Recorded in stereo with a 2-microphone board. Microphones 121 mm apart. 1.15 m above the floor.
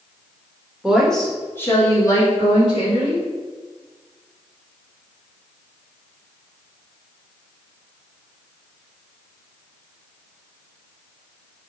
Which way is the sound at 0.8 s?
5° right (ahead or behind).